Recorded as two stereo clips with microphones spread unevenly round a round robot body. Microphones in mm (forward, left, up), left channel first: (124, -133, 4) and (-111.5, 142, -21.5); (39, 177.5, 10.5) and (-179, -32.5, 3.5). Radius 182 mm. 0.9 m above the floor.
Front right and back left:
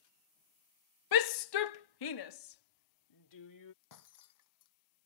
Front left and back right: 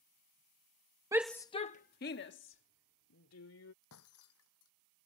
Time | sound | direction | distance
1.1 | a shout | 60° right | ?
3.8 | breaking glass | 10° right | ?